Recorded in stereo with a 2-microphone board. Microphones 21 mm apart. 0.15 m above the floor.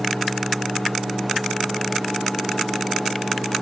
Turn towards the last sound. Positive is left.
No sound to turn to.